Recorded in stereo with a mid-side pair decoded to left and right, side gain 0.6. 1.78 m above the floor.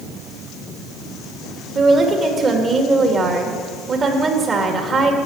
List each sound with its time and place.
1.8 s a woman speaking: 35° right, 3 m